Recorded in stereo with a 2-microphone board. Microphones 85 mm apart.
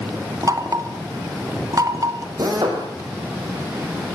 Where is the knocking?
45° right (ahead or behind), 3 m.